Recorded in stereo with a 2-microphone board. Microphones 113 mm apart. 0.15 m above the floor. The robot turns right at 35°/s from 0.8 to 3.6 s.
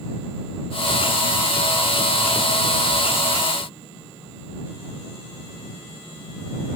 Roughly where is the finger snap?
No finger snap in this recording.